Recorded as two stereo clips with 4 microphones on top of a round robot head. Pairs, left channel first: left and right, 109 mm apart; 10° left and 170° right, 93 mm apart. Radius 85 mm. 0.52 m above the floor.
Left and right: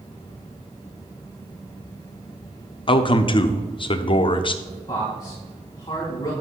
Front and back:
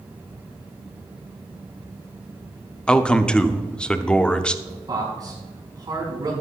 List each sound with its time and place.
2.9 s a man speaking: 85° left, 0.9 m
4.7 s a man speaking: 150° left, 4.5 m